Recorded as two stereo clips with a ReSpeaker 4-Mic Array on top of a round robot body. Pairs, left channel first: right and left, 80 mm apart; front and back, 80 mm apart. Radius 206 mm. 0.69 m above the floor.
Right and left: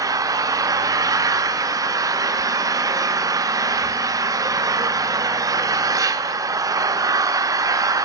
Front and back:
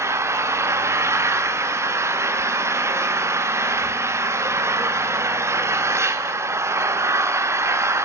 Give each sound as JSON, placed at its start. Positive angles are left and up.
{"t": 0.0, "sound": "an engine running", "azimuth_deg": 130, "distance_m": 1.4}